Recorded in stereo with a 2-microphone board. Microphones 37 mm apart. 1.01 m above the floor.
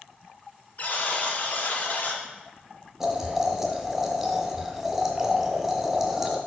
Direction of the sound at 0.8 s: 50° left (ahead or behind).